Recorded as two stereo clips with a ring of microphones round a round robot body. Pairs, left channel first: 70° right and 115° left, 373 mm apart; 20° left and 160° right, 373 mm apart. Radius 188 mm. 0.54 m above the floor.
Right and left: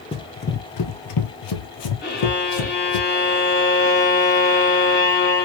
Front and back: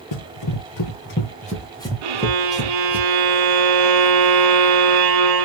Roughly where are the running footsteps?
Ahead.